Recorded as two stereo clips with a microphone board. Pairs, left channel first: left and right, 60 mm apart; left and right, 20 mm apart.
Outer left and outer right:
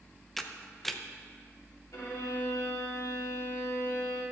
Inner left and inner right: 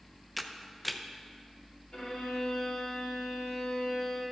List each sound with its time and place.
0.4 s a camera shutter: 5° left (ahead or behind), 0.6 m
1.9 s a violin: 75° left (ahead or behind), 3.5 m